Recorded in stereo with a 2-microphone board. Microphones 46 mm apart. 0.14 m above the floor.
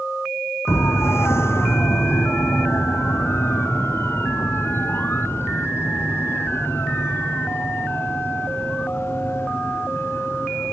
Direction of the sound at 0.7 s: 65° left (ahead or behind).